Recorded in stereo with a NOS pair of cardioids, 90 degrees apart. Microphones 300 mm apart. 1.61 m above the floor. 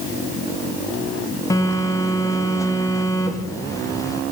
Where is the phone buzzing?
10° left, 1.6 m.